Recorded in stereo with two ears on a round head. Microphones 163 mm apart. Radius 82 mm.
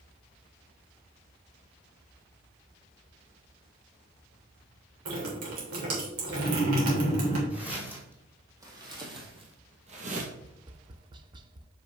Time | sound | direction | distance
5.0 | dripping | 85° right | 3.5 m
7.5 | footsteps | 10° right (ahead or behind) | 3 m
10.4 | tapping | 25° right (ahead or behind) | 0.6 m